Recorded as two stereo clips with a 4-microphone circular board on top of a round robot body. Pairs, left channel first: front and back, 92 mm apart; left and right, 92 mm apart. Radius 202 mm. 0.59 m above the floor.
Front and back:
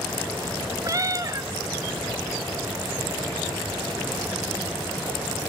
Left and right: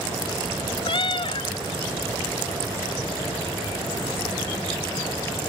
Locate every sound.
0.8 s a cat meowing: 125° left, 1.0 m